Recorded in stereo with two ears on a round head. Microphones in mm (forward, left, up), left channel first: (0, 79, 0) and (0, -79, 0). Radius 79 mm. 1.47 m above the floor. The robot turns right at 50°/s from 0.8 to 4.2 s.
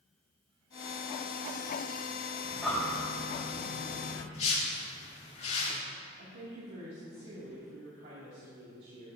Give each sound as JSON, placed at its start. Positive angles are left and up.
{"t": 2.4, "sound": "breathing", "side_deg": -10, "distance_m": 4.5}
{"t": 4.3, "sound": "a whoosh", "side_deg": 40, "distance_m": 3.0}
{"t": 6.2, "sound": "a woman speaking", "side_deg": -65, "distance_m": 2.5}